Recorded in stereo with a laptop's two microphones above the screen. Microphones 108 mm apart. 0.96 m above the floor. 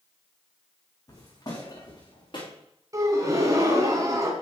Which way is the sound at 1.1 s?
35° left (ahead or behind).